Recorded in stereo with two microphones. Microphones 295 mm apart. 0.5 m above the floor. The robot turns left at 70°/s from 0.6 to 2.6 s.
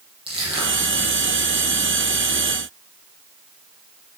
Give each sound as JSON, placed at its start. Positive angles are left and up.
{"t": 0.3, "sound": "crushing", "side_deg": -15, "distance_m": 9.0}